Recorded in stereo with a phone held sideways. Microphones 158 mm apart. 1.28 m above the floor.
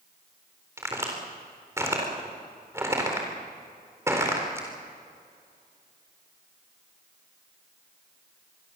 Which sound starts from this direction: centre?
A crack, at 0.8 s.